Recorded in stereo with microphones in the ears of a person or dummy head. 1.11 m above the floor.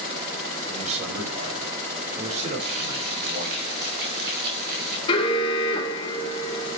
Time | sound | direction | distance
0.7 | a man speaking | 35° right (ahead or behind) | 5.5 m
2.6 | frying | 60° right (ahead or behind) | 3.5 m
5.1 | an alarm | 35° left (ahead or behind) | 3 m